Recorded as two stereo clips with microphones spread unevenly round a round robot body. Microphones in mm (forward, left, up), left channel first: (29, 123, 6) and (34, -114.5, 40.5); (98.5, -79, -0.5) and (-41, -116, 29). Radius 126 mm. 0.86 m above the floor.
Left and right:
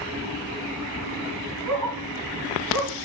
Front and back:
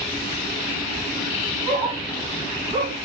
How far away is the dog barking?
About 7 m.